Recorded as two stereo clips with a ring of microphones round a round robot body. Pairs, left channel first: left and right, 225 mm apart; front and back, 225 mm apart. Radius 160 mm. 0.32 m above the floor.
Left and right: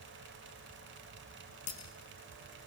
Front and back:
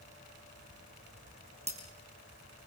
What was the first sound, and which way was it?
Breaking glass, 120° left.